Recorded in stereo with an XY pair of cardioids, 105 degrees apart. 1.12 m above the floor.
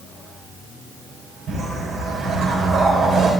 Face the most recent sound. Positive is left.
turn(degrees=-55)